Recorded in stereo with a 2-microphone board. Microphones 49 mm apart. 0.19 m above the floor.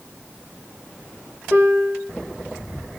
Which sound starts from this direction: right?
A piano, at 1.5 s.